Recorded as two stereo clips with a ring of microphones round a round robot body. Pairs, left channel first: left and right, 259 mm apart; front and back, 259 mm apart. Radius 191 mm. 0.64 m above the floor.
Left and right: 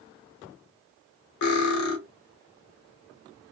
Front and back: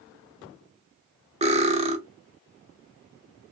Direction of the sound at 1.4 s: 110° left.